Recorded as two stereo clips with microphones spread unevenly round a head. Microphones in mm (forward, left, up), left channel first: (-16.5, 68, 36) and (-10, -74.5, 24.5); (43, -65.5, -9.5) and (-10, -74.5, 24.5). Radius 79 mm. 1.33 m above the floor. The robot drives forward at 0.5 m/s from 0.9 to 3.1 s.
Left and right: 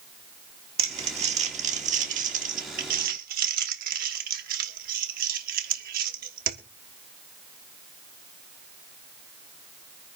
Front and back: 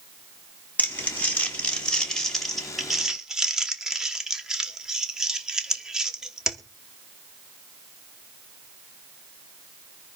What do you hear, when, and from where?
0.8 s crumpling: 40° right, 1.8 m; by 6.6 s 80° right, 1.2 m